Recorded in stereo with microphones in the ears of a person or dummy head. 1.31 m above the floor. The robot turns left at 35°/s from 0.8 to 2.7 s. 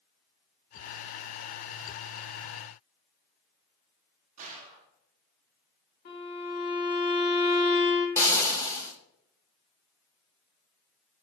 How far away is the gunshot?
About 0.6 m.